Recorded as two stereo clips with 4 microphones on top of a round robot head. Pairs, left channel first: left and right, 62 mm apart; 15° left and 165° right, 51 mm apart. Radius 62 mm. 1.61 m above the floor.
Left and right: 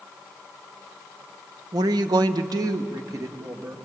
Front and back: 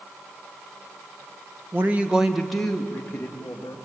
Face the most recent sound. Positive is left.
turn(degrees=-50)